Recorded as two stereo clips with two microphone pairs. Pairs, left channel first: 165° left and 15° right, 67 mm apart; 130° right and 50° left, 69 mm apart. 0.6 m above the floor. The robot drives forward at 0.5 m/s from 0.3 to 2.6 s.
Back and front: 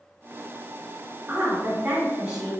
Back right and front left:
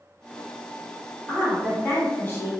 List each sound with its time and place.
1.3 s a woman speaking: 65° right, 1.6 m; by 2.5 s 95° right, 1.5 m